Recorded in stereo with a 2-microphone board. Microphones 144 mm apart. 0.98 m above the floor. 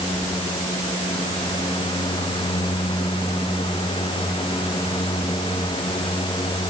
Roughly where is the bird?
No bird in this recording.